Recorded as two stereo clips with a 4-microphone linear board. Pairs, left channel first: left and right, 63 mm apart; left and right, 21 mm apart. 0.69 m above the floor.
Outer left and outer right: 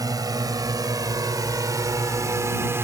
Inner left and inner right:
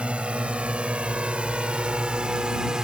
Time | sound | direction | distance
0.0 | a drone | 70° right (ahead or behind) | ?